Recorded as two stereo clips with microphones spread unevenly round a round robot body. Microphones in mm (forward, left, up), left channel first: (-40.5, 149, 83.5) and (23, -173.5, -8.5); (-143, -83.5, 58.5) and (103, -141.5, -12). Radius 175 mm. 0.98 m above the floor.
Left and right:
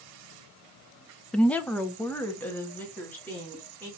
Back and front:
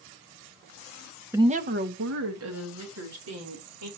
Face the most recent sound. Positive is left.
turn(degrees=15)